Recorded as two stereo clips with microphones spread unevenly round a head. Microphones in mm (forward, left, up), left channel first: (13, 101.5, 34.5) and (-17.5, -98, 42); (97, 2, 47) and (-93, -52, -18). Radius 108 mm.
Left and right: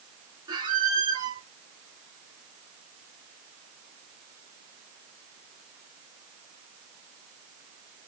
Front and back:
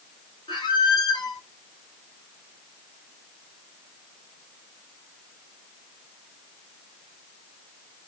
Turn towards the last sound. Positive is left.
turn(degrees=-35)